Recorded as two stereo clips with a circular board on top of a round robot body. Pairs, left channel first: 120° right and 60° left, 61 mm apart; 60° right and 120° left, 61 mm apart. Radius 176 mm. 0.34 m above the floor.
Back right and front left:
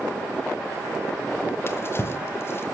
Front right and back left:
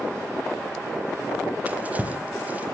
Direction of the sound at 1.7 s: 175° right.